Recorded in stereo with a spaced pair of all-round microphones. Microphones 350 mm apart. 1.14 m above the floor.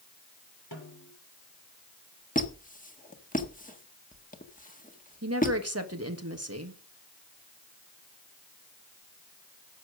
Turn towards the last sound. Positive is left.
turn(degrees=-45)  # may be behind; listen again after turning